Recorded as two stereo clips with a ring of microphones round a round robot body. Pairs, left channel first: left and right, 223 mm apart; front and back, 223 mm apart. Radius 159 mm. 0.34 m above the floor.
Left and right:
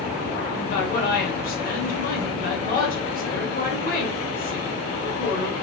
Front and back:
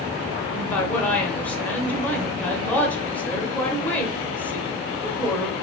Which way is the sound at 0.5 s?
80° left.